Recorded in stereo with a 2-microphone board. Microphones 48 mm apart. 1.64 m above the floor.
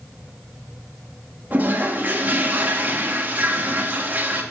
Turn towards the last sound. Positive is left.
turn(degrees=-40)  # may be behind; listen again after turning